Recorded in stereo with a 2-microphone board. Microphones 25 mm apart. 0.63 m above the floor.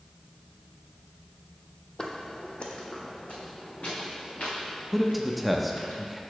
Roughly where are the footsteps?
Left.